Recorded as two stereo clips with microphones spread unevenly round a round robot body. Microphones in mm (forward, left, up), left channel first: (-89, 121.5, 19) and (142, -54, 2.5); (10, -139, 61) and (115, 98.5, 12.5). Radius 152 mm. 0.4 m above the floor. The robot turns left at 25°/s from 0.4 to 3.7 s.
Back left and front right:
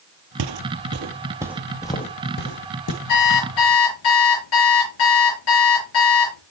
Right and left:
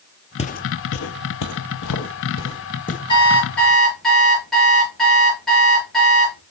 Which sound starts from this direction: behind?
An alarm clock, at 3.1 s.